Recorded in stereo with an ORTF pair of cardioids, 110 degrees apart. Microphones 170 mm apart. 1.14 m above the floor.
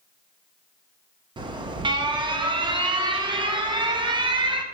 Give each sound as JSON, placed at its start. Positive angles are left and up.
{"t": 1.4, "sound": "an alarm", "azimuth_deg": -25, "distance_m": 1.0}